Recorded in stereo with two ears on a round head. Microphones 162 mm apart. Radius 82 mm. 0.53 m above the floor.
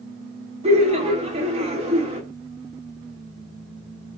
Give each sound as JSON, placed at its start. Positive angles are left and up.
{"t": 0.6, "sound": "laughter", "side_deg": -35, "distance_m": 0.9}